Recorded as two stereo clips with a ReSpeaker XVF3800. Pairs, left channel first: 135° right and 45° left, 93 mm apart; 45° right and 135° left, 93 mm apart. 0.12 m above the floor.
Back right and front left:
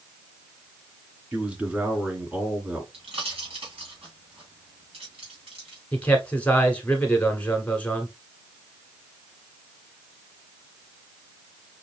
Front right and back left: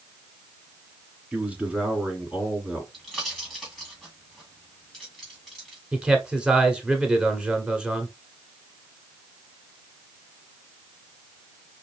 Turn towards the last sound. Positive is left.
turn(degrees=-170)